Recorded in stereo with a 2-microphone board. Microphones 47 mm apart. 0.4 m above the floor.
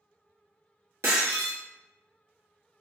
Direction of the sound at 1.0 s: 70° right (ahead or behind).